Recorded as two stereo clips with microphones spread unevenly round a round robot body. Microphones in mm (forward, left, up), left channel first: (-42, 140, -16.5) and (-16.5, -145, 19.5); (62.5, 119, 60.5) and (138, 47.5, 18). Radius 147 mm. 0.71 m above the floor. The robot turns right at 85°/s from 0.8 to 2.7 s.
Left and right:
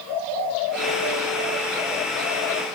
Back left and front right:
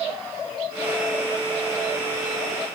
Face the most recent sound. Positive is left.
No sound to turn to.